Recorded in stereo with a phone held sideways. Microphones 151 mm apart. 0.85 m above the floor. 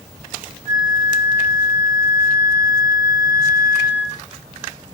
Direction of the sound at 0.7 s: 40° left (ahead or behind).